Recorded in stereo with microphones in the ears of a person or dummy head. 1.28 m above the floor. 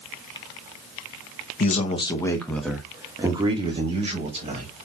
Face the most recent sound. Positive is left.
turn(degrees=-40)  # may be behind; listen again after turning